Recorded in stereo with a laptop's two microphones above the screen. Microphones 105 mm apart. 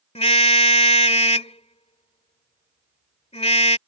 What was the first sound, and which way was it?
A car horn, 85° left.